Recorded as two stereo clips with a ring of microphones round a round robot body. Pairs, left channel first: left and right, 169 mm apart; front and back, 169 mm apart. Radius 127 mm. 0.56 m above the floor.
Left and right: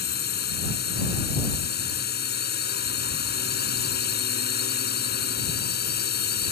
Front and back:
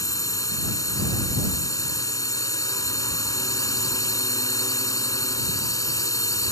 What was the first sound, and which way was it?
A drone, 70° left.